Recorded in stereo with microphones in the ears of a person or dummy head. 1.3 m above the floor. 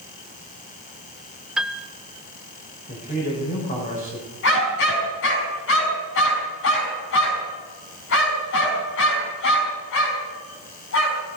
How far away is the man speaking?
About 4.5 m.